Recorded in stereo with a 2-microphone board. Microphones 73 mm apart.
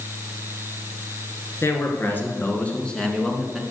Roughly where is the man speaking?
Left.